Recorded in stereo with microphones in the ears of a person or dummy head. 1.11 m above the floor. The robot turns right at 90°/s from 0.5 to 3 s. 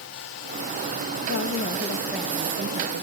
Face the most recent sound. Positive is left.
turn(degrees=-105)